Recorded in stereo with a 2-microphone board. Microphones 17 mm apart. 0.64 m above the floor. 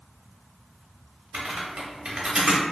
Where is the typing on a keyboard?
55° right (ahead or behind), 0.6 m.